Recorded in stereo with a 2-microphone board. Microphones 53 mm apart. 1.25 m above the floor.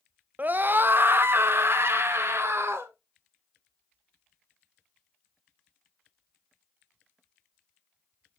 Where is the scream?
35° right (ahead or behind), 0.6 m; by 2.9 s 55° right (ahead or behind), 2 m.